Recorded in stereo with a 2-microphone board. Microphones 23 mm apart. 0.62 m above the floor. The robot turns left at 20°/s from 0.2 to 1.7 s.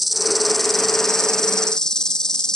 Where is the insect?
175° right; by 2.6 s 155° left.